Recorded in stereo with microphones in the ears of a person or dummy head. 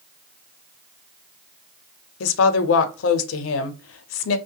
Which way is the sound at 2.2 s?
85° left.